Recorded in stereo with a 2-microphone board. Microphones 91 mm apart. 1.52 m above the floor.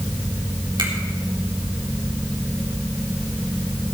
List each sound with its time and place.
0.8 s a finger snap: 65° right (ahead or behind), 4 m